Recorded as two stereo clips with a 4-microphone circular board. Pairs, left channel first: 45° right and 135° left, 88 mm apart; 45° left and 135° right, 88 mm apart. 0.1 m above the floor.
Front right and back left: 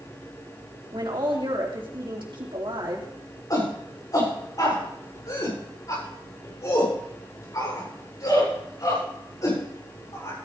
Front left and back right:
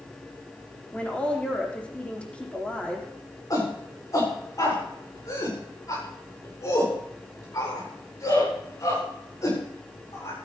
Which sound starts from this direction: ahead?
A shout, at 3.5 s.